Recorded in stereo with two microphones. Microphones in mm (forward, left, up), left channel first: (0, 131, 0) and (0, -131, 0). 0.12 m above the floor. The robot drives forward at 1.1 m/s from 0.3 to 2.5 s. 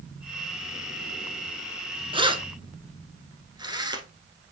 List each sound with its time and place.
2.1 s keys jangling: 20° right (ahead or behind), 0.8 m; by 4.1 s 15° right (ahead or behind), 1.0 m